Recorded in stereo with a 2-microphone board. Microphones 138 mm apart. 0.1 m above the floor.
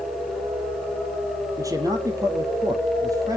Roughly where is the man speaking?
Right.